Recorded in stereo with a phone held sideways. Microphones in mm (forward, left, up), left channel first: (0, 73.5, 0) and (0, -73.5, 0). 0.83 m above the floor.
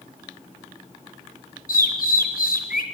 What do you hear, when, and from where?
1.7 s a bird: 75° left (ahead or behind), 4 m